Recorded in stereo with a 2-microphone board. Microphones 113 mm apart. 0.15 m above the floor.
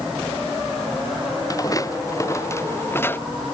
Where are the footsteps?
35° left (ahead or behind); by 3.2 s 20° left (ahead or behind).